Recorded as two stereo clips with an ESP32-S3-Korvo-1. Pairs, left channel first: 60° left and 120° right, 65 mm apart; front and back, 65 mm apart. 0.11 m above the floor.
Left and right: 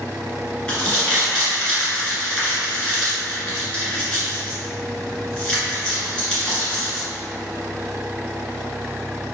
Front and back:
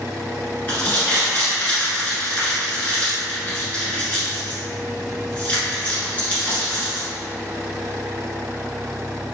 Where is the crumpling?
15° left, 1.7 m.